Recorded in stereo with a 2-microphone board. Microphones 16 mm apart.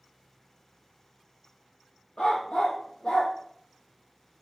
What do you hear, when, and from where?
2.2 s a dog barking: 65° left (ahead or behind), 2.5 m